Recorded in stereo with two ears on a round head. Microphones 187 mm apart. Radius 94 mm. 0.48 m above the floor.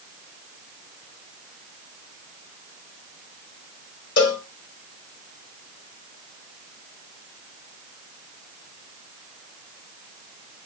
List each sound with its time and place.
4.2 s a cowbell: 55° left (ahead or behind), 2.0 m